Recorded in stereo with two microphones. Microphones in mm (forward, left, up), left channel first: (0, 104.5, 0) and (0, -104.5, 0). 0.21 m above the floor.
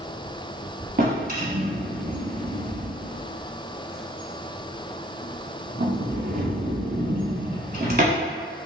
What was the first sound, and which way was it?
A drawer, 50° right (ahead or behind).